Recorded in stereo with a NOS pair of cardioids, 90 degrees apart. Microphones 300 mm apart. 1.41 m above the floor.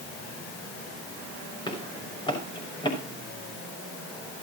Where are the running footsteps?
15° left, 6 m.